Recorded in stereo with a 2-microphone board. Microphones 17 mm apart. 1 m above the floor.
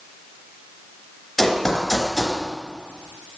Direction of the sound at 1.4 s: 10° left (ahead or behind).